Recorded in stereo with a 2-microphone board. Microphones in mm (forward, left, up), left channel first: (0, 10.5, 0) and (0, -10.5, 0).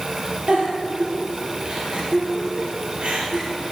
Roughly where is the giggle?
Right.